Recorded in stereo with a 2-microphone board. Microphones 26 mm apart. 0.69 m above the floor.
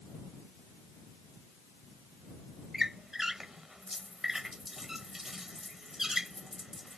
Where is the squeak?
15° right (ahead or behind).